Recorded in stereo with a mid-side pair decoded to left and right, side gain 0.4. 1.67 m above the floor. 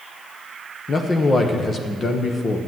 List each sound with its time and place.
0.9 s a man speaking: 40° left, 1.2 m